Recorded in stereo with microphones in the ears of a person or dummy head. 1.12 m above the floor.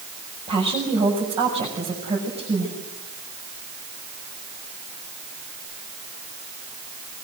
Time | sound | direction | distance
0.5 | a woman speaking | 35° right (ahead or behind) | 7 m